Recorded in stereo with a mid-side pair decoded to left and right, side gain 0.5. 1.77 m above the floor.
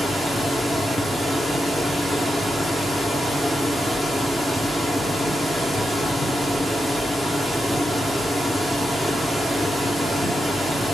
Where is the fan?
10° right, 1.4 m.